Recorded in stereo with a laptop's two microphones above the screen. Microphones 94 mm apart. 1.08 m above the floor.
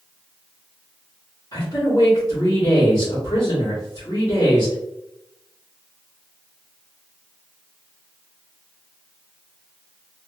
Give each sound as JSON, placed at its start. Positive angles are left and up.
{"t": 1.5, "sound": "a man speaking", "side_deg": 45, "distance_m": 1.2}